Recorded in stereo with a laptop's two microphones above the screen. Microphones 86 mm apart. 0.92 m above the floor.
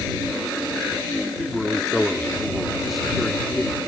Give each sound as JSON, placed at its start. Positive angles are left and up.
{"t": 1.4, "sound": "a man speaking", "side_deg": 0}